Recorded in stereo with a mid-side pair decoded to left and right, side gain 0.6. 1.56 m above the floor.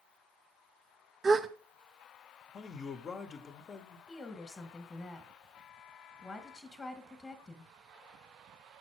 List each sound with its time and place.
1.2 s a gasp: 25° right, 0.7 m
2.5 s a man speaking: 40° left, 1.3 m
4.1 s a woman speaking: 20° left, 1.8 m